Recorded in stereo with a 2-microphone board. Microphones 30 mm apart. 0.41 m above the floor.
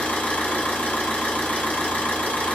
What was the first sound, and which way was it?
An engine running, 70° left (ahead or behind).